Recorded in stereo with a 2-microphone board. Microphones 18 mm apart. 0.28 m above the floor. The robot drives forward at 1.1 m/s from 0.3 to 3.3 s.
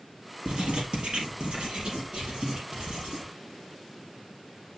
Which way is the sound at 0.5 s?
75° right (ahead or behind).